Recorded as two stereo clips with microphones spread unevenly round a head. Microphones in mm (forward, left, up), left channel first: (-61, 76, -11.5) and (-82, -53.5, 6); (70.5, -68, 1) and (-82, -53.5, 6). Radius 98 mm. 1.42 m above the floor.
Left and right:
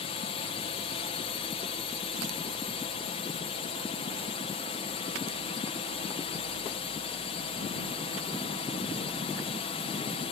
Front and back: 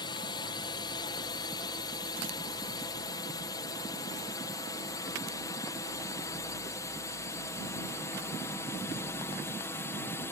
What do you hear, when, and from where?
0.0 s a drone: 50° left; by 10.3 s 65° left